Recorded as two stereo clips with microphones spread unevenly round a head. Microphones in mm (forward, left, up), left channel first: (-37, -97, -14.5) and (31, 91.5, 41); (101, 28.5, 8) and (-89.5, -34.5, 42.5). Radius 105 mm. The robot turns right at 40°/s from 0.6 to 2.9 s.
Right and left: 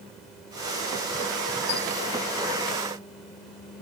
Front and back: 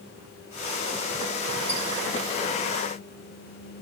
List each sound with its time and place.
1.7 s a squeak: 105° right, 5.5 m; by 1.8 s 100° right, 5.5 m